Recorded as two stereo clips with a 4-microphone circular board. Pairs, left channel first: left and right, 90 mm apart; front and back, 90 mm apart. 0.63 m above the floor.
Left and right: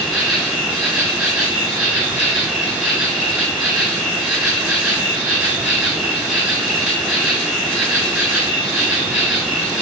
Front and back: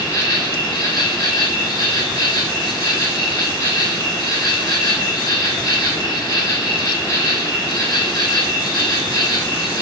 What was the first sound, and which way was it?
An insect, 10° right.